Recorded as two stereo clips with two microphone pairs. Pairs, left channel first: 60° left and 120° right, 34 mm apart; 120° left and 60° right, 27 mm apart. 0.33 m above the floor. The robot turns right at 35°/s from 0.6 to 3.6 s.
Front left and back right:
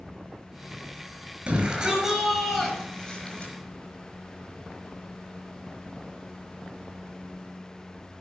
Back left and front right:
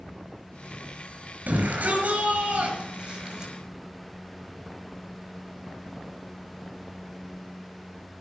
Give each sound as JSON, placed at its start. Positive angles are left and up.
{"t": 1.5, "sound": "a shout", "azimuth_deg": -60, "distance_m": 5.5}